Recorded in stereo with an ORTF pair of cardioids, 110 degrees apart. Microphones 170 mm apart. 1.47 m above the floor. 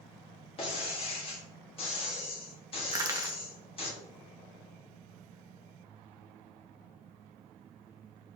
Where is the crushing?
20° right, 0.9 m.